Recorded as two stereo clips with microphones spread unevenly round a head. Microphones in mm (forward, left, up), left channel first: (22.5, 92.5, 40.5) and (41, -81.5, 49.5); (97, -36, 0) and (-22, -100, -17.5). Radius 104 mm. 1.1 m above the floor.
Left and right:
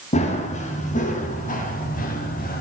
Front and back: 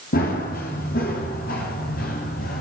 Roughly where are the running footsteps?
Ahead left.